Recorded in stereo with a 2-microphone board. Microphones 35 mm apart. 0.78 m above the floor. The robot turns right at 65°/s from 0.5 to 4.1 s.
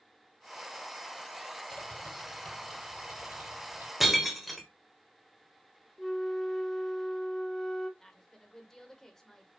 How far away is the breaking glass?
About 1.6 m.